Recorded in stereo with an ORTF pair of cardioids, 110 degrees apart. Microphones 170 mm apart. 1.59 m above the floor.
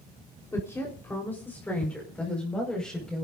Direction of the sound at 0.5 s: 15° left.